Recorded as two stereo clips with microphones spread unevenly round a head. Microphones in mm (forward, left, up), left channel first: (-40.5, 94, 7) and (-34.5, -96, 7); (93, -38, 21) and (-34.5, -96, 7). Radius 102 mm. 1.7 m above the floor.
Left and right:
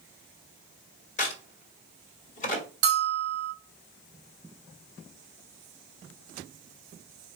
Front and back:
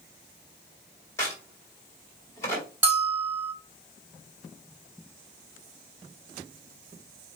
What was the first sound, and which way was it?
A crack, 75° left.